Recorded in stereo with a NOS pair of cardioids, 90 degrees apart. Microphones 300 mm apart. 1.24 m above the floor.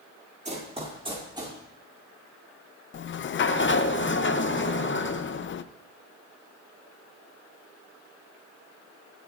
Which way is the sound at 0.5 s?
25° right.